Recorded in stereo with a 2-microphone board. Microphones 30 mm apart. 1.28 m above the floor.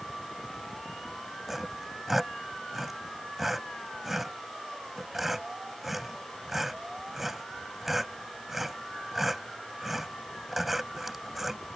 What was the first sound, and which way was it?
Sawing, 10° right (ahead or behind).